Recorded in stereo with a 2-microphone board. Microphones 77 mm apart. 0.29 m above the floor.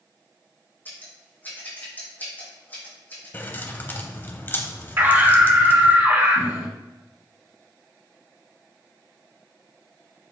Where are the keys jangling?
30° left (ahead or behind), 1.0 m.